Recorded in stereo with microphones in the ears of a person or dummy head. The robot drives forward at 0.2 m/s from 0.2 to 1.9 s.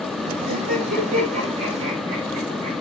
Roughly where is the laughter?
Right.